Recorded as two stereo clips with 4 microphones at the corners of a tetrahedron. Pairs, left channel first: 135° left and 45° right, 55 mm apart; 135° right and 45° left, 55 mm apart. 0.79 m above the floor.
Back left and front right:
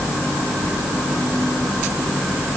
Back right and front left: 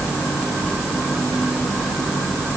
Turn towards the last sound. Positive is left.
No sound to turn to.